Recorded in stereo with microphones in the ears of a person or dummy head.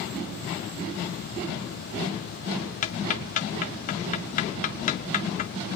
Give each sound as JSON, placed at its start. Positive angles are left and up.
{"t": 2.8, "sound": "ticking", "side_deg": 40, "distance_m": 0.9}